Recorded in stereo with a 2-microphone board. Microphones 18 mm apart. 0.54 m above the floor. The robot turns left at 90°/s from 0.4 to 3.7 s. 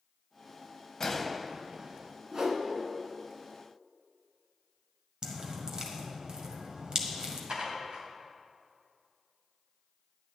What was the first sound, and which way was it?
A gunshot, 35° left.